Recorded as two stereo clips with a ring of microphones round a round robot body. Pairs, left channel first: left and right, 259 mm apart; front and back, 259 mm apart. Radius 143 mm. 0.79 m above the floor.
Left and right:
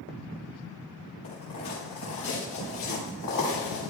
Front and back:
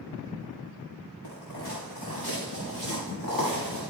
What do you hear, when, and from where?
1.2 s footsteps: 40° left, 6.5 m; by 3.9 s 65° left, 6 m